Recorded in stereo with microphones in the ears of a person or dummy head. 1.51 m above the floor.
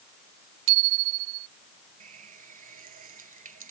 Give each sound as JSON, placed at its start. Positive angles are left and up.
{"t": 0.7, "sound": "a bicycle bell", "side_deg": -60}
{"t": 2.0, "sound": "a running tap", "side_deg": -45}